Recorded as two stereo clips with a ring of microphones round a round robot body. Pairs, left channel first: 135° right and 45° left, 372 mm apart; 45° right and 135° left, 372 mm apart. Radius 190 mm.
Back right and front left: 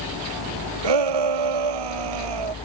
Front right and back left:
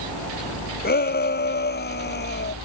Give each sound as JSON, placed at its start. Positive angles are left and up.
{"t": 0.8, "sound": "a shout", "azimuth_deg": 20}